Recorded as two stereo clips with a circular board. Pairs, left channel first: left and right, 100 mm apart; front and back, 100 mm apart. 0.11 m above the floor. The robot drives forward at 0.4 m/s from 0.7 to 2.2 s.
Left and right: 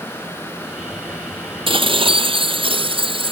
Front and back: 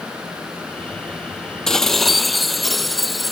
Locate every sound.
1.7 s dishes clattering: 85° right; by 3.3 s 90° right